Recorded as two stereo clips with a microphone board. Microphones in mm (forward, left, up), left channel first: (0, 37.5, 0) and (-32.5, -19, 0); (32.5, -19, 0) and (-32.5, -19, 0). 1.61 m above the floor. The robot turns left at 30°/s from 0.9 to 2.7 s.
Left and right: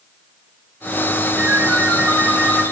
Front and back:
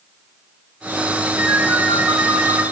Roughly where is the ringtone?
Behind.